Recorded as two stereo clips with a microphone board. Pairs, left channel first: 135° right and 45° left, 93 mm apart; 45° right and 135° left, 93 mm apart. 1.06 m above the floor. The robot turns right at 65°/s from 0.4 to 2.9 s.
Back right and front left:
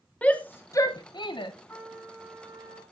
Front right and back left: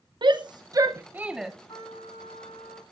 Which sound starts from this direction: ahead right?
A trumpet, at 1.7 s.